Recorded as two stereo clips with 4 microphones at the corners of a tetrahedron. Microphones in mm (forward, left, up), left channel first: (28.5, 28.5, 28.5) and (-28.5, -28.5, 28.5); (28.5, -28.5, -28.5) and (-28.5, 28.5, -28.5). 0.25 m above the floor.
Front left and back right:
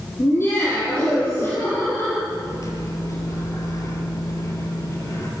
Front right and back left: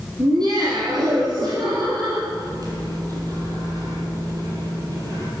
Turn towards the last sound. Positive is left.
turn(degrees=95)